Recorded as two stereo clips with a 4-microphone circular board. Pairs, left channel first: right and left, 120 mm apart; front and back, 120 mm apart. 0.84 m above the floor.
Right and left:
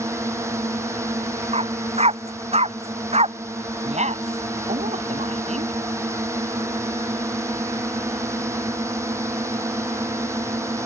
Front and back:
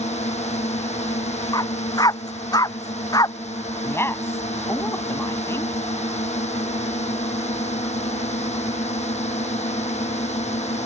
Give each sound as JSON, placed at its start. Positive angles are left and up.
{"t": 0.0, "sound": "a drone", "azimuth_deg": 25}
{"t": 1.5, "sound": "a dog barking", "azimuth_deg": 60}
{"t": 3.8, "sound": "a woman speaking", "azimuth_deg": 70}